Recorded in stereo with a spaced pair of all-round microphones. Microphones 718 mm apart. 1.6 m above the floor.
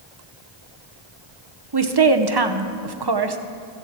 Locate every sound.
1.7 s a woman speaking: 35° right (ahead or behind), 0.9 m